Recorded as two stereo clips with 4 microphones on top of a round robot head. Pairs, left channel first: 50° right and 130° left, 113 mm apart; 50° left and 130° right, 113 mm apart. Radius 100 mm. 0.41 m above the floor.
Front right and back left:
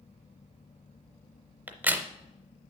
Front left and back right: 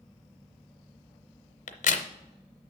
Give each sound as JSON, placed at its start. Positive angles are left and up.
{"t": 1.7, "sound": "a crack", "azimuth_deg": 50, "distance_m": 0.7}